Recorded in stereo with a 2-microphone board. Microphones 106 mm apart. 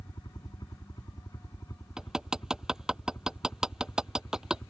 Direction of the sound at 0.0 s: 40° left (ahead or behind).